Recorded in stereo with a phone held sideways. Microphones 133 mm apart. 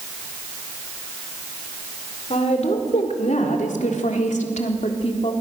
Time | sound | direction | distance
2.3 | a woman speaking | 55° left (ahead or behind) | 4 m